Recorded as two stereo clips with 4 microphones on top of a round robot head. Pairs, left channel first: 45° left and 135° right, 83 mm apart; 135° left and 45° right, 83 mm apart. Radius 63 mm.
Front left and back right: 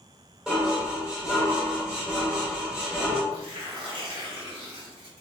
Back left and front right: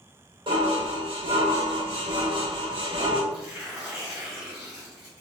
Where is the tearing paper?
125° right, 1.6 m.